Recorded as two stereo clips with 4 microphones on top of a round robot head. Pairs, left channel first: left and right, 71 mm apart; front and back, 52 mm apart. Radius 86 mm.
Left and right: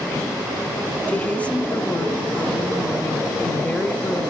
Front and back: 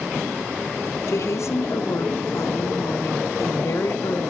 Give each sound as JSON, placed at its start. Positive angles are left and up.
{"t": 1.1, "sound": "a woman speaking", "azimuth_deg": 20, "distance_m": 2.0}